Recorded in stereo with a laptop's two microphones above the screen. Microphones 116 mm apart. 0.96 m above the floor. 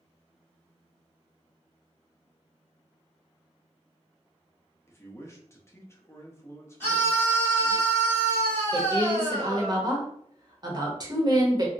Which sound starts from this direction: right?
A woman speaking, at 8.7 s.